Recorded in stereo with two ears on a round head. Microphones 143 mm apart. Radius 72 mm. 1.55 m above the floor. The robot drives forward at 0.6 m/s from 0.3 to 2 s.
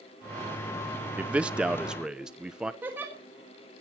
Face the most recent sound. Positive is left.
turn(degrees=-15)  # may be behind; listen again after turning